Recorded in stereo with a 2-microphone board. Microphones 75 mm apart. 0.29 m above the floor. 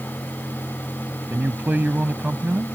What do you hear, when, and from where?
1.3 s a man speaking: 25° right (ahead or behind)